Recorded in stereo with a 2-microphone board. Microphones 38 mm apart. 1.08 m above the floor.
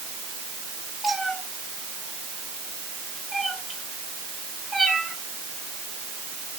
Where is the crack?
I don't hear a crack.